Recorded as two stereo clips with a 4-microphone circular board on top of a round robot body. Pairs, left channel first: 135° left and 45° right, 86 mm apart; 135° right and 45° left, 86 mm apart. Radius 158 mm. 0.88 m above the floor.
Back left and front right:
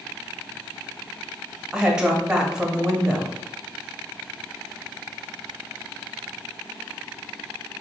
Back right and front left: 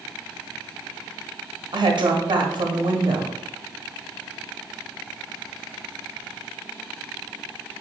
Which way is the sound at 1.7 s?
35° left.